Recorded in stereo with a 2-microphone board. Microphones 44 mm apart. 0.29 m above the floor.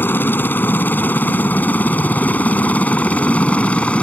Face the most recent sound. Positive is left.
turn(degrees=30)  # may be behind; listen again after turning